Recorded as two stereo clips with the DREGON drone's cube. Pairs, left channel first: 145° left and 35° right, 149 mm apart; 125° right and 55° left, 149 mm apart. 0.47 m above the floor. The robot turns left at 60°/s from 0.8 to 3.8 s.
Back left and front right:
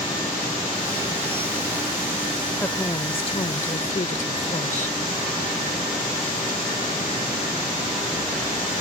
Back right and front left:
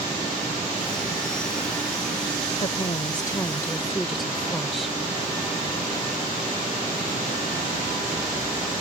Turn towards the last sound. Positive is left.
turn(degrees=145)